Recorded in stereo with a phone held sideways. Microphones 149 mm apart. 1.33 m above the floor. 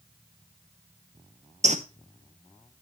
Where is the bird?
50° right (ahead or behind), 0.8 m.